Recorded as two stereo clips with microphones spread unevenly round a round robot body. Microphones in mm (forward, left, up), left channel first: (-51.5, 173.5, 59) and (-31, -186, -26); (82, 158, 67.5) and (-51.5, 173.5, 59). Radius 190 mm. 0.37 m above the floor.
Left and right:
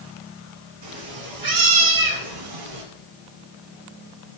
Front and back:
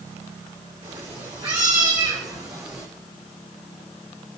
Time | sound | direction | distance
0.8 | a cat meowing | 125° right | 3 m